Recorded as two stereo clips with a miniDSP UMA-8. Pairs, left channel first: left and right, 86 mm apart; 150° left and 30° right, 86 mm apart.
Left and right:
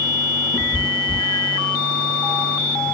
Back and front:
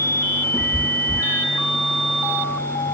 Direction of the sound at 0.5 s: 95° left.